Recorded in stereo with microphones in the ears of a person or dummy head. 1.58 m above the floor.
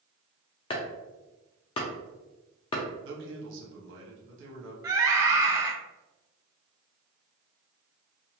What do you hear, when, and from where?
0.7 s chopping: 25° left (ahead or behind), 0.5 m
3.0 s a man speaking: 75° right (ahead or behind), 1.1 m
4.8 s a scream: 20° right (ahead or behind), 0.7 m